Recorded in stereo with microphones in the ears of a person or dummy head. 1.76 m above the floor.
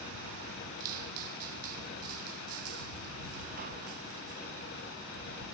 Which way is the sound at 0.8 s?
45° right (ahead or behind).